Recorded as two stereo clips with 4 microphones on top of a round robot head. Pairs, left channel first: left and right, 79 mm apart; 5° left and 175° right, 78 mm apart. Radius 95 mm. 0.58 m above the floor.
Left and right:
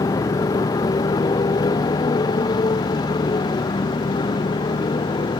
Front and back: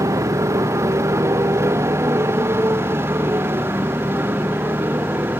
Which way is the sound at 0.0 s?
135° left.